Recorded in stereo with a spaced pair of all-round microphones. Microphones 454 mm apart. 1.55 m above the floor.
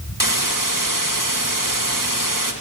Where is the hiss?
45° right (ahead or behind), 2 m.